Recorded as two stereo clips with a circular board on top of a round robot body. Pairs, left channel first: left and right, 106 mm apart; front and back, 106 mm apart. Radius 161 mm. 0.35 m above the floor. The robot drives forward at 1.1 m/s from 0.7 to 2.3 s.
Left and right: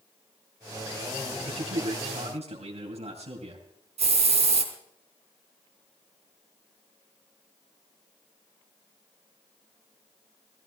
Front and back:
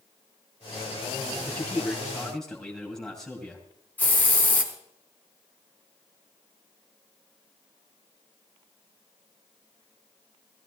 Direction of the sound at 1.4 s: 70° right.